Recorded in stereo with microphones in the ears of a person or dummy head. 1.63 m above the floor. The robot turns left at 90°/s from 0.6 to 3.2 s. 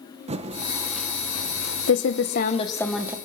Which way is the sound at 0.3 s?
35° right (ahead or behind).